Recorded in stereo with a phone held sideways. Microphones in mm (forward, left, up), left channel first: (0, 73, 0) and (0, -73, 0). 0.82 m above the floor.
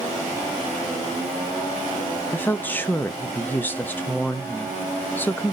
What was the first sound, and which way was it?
A woman speaking, 10° left (ahead or behind).